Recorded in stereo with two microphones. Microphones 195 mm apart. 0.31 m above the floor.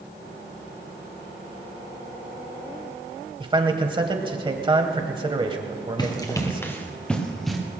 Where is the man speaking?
25° right (ahead or behind), 1.2 m.